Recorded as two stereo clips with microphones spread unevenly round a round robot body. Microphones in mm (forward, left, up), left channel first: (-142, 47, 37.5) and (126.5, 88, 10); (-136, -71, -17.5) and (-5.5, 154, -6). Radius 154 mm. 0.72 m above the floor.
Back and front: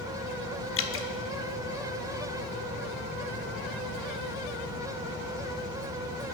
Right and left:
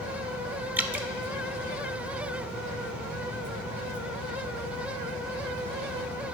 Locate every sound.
0.8 s dripping: 145° left, 1.2 m